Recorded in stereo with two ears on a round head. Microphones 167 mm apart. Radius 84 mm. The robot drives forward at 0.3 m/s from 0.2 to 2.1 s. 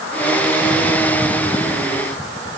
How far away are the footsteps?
I don't hear footsteps.